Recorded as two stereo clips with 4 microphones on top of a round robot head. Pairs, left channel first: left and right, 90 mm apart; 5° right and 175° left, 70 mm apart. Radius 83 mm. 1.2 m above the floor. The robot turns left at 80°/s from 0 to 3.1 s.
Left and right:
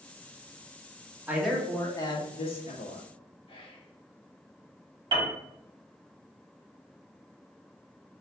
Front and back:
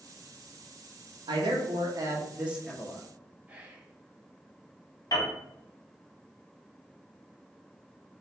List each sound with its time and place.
1.3 s a man speaking: 160° right, 1.3 m; by 3.0 s 60° left, 1.3 m
3.5 s whispering: 105° left, 1.5 m
5.1 s a piano: 50° right, 1.8 m